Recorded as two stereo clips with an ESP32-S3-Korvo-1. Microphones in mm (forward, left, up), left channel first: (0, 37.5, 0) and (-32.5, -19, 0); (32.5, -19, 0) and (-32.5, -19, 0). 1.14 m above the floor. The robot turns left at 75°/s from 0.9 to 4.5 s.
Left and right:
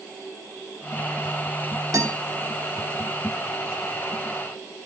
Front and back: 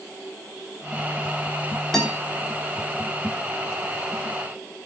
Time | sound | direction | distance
1.9 | a guitar | 85° right | 3.5 m